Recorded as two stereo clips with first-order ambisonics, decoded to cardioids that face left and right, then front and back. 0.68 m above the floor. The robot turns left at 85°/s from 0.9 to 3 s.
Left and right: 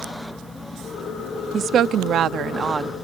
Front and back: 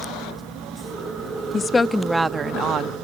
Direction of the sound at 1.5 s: 50° right.